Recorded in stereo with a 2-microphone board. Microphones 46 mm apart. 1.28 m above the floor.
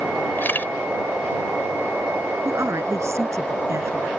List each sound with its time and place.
0.4 s a camera shutter: 45° left (ahead or behind)
2.5 s a woman speaking: 75° right (ahead or behind)